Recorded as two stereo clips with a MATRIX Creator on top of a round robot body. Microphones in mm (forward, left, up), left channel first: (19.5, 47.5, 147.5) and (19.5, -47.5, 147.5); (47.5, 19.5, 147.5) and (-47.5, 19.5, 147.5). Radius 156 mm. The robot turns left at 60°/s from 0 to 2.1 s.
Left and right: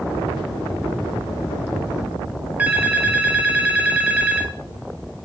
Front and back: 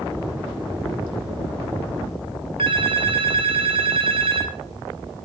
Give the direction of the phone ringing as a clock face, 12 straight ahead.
5 o'clock.